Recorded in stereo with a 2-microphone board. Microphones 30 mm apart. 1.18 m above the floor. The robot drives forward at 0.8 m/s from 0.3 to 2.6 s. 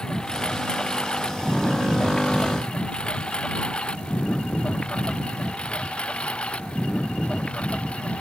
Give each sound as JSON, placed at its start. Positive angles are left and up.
{"t": 0.0, "sound": "a lawn mower", "side_deg": 25}